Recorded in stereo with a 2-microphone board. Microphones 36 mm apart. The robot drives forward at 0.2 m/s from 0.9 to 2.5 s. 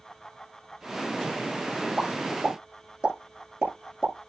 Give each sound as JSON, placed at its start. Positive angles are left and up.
{"t": 2.0, "sound": "a pop", "side_deg": -30, "distance_m": 9.0}